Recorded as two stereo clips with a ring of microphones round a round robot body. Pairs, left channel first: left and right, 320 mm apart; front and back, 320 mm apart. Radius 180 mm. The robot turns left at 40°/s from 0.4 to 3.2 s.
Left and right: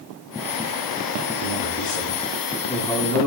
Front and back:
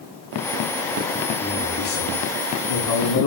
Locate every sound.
1.4 s a man speaking: 65° left, 8.5 m; by 3.3 s 5° right, 8.5 m